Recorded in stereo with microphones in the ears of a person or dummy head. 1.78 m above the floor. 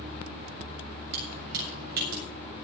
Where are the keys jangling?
65° right (ahead or behind), 7.5 m; by 2.2 s 70° right (ahead or behind), 7 m.